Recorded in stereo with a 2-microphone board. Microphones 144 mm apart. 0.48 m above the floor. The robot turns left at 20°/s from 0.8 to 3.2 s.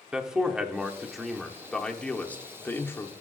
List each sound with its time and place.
0.1 s a man speaking: 5° right (ahead or behind), 0.7 m; by 3.1 s 15° left (ahead or behind), 0.7 m